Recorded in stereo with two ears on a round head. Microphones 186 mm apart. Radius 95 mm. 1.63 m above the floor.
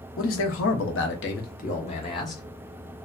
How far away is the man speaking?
About 1.0 m.